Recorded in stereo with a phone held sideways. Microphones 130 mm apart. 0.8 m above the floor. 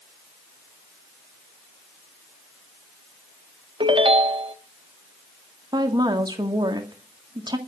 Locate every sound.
3.8 s a ringtone: 40° right (ahead or behind), 1.0 m
5.7 s a woman speaking: 30° right (ahead or behind), 1.7 m